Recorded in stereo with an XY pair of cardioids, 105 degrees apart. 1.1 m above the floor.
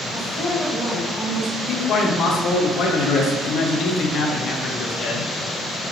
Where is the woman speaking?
10° left, 1.9 m; by 1.6 s 10° right, 2.5 m.